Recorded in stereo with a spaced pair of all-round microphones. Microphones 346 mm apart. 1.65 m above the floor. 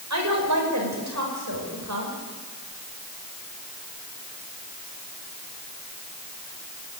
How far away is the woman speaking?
About 6 m.